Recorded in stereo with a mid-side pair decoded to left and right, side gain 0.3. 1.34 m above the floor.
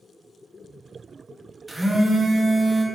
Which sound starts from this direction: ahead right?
A phone buzzing, at 1.7 s.